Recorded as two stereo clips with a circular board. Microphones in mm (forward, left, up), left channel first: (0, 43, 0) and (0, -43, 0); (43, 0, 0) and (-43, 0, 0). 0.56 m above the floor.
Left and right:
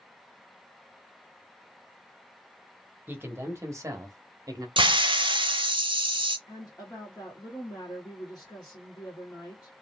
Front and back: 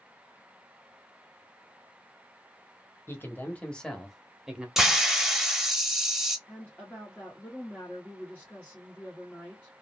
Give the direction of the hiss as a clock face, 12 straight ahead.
3 o'clock.